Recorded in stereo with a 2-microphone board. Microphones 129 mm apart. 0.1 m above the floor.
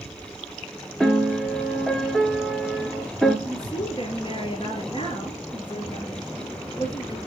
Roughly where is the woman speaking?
Left.